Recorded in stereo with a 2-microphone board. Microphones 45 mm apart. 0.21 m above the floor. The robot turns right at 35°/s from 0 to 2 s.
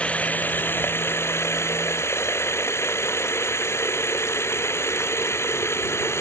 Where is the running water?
30° left; by 6.2 s 100° left.